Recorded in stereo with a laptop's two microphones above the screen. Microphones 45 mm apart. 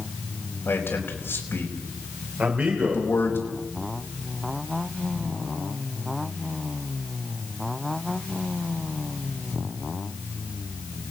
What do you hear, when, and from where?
0.7 s a man speaking: 60° left (ahead or behind), 4 m
2.4 s a man speaking: 40° right (ahead or behind), 3.5 m